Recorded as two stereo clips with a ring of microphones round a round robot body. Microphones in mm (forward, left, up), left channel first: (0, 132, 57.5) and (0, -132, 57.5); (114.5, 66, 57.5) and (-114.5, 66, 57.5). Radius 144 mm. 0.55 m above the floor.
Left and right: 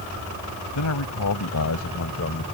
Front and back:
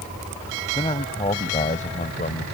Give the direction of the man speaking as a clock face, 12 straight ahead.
10 o'clock.